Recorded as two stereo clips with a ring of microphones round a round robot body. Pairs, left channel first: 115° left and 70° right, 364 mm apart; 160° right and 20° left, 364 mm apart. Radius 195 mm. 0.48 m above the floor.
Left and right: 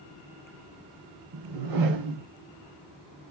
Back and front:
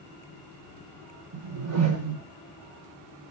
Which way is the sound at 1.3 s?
30° right.